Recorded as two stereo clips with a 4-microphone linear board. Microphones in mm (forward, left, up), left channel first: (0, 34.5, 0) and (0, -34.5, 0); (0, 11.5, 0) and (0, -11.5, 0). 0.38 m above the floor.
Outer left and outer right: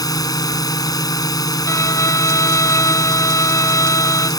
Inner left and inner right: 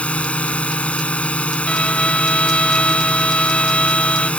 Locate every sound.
0.0 s a drone: 65° left (ahead or behind)
1.7 s a violin: 50° left (ahead or behind)